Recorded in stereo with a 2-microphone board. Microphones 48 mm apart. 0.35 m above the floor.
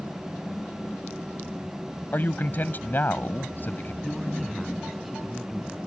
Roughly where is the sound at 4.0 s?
Centre.